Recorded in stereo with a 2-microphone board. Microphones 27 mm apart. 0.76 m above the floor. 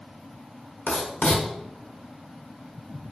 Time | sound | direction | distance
0.9 | writing | 85° left | 1.4 m